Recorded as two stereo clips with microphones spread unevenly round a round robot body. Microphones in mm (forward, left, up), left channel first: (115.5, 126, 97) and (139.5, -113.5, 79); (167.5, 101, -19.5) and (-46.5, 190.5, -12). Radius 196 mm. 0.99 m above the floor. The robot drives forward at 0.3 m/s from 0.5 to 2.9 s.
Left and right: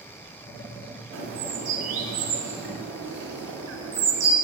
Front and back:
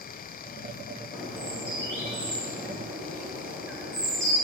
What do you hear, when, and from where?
1.1 s a bird: 120° right, 1.6 m; by 4.3 s 135° right, 1.9 m